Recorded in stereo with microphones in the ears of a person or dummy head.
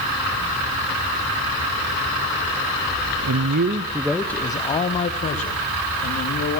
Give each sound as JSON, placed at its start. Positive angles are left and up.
{"t": 3.2, "sound": "a man speaking", "side_deg": -75, "distance_m": 0.9}